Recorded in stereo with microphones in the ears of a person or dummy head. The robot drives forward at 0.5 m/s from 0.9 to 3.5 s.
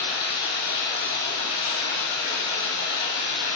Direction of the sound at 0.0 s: 80° left.